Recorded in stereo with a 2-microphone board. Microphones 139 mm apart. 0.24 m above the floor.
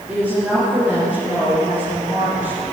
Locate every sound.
0.1 s a woman speaking: 15° right (ahead or behind), 5 m